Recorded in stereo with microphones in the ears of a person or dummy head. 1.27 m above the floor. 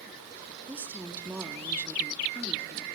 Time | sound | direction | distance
0.7 | a woman speaking | 10° right (ahead or behind) | 0.8 m